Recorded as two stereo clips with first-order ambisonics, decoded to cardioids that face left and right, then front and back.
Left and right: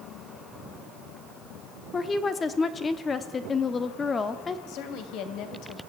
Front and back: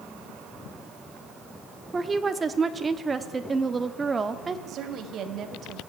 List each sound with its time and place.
1.9 s a woman speaking: 125° left, 1.1 m
4.7 s a woman speaking: 125° left, 3 m